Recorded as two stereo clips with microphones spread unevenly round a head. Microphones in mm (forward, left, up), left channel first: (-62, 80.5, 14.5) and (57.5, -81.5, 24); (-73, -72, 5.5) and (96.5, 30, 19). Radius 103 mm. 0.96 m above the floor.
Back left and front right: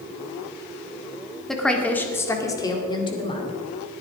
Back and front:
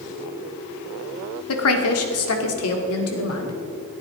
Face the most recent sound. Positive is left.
turn(degrees=-170)